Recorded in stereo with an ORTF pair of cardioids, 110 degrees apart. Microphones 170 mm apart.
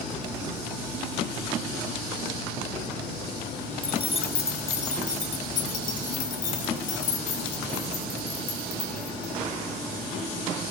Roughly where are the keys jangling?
Ahead left.